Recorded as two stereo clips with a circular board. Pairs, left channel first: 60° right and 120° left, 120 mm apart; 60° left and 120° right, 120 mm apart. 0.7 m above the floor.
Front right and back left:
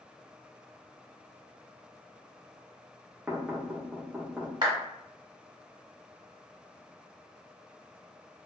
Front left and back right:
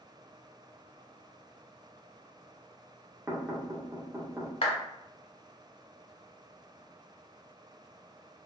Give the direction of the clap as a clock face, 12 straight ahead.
10 o'clock.